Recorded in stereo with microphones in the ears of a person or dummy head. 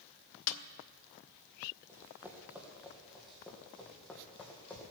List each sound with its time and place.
0.5 s a snare drum: 85° left, 0.8 m
1.9 s running footsteps: 10° right (ahead or behind), 2.5 m; by 4.9 s 5° left (ahead or behind), 4 m